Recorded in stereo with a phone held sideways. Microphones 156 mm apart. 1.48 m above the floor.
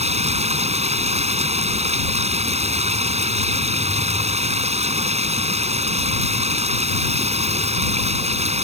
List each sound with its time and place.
0.0 s running water: 45° right (ahead or behind)